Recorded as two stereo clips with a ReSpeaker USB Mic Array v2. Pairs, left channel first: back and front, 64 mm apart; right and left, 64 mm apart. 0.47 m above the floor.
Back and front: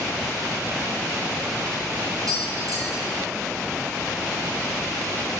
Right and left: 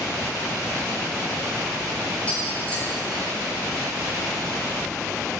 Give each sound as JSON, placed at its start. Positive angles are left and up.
{"t": 2.3, "sound": "tapping", "azimuth_deg": -20, "distance_m": 4.5}